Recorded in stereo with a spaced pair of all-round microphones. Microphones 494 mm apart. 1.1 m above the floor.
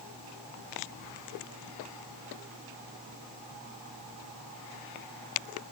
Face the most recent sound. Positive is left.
No sound to turn to.